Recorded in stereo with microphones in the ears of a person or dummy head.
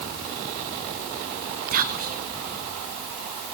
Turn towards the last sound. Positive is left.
turn(degrees=-50)  # may be behind; listen again after turning